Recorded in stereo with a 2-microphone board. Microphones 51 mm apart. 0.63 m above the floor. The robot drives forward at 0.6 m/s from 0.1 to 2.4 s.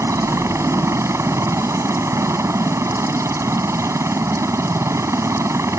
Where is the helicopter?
75° right (ahead or behind).